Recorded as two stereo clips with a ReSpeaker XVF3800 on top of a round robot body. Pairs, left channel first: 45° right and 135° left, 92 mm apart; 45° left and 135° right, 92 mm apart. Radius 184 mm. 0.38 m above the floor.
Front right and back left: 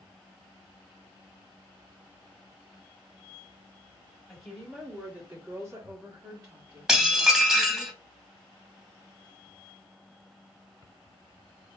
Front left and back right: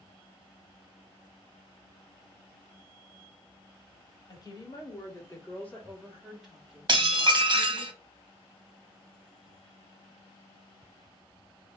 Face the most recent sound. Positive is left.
turn(degrees=-140)